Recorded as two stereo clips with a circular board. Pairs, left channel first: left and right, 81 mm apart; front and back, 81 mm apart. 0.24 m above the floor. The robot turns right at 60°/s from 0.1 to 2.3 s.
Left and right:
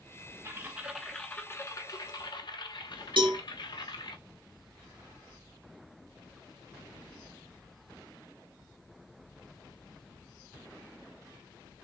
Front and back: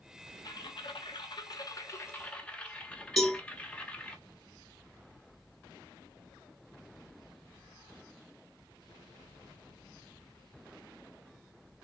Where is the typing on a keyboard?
35° right, 0.9 m; by 4.2 s 75° left, 0.9 m.